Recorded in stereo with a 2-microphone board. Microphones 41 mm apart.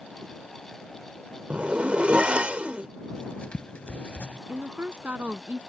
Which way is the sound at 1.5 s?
30° right (ahead or behind).